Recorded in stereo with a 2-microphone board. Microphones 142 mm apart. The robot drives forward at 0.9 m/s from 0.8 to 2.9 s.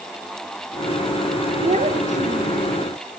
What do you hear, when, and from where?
1.6 s a child speaking: 55° right (ahead or behind), 2 m; by 2.8 s 70° right (ahead or behind), 2.0 m